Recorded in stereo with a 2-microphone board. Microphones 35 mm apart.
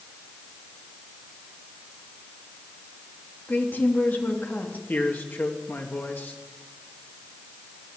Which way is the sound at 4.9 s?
65° left (ahead or behind).